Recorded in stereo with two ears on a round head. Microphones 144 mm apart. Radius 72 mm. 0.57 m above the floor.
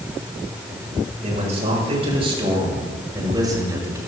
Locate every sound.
1.2 s a man speaking: 45° right (ahead or behind), 9 m; by 4.0 s 20° right (ahead or behind), 7.5 m